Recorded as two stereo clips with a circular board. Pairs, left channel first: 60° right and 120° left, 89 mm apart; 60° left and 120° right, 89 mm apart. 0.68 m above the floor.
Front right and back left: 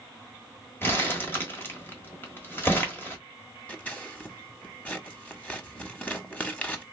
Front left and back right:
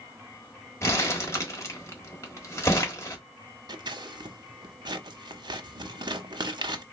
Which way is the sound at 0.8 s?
5° left.